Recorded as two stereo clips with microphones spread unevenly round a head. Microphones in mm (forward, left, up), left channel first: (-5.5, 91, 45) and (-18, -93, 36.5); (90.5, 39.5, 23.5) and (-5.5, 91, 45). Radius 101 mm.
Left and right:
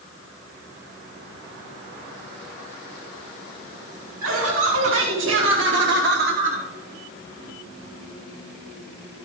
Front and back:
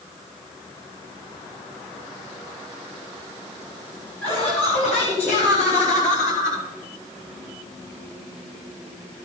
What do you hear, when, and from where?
4.2 s laughter: 85° right, 4 m; by 6.7 s 30° right, 1.0 m